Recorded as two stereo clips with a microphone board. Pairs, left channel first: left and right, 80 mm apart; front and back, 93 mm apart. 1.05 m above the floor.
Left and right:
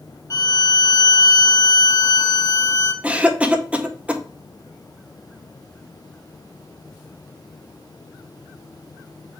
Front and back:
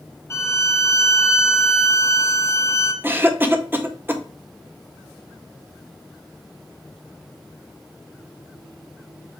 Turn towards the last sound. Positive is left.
turn(degrees=-145)